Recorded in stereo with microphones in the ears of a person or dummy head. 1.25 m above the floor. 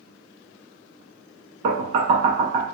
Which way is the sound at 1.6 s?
45° right (ahead or behind).